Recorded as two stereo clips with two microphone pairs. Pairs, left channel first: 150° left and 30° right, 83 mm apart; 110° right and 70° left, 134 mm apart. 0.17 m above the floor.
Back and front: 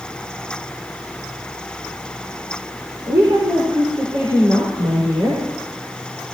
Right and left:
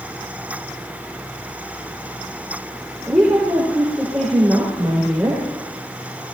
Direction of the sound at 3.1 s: 5° right.